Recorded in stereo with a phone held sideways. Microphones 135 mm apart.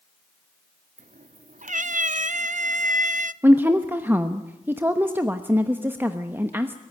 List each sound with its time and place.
1.0 s a cat meowing: 70° right (ahead or behind), 0.6 m
3.4 s a woman speaking: 15° right (ahead or behind), 1.0 m